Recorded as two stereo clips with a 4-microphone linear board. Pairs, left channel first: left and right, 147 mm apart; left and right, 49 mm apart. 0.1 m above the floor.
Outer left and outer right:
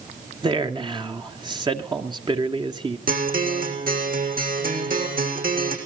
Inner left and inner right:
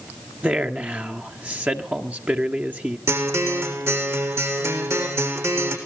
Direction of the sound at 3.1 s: 75° right (ahead or behind).